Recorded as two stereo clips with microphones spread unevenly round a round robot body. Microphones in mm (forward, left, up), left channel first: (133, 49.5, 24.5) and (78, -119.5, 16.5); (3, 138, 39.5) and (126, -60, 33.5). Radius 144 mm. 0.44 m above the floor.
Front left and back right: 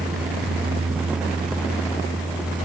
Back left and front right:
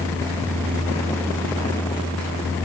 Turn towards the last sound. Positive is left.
No sound to turn to.